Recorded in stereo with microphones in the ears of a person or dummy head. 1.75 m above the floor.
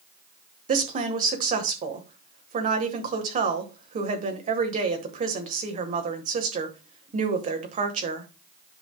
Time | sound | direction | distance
0.7 | a woman speaking | 40° right (ahead or behind) | 1.3 m